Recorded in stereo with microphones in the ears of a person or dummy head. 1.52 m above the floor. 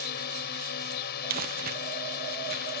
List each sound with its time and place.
0.0 s a drone: 55° left (ahead or behind)
1.3 s crumpling: 50° right (ahead or behind)